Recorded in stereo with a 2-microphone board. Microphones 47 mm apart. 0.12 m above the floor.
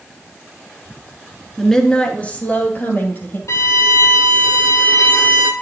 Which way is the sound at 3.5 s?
75° left (ahead or behind).